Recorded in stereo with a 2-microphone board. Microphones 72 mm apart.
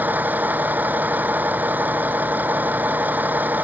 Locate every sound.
0.0 s a vehicle: 25° right (ahead or behind)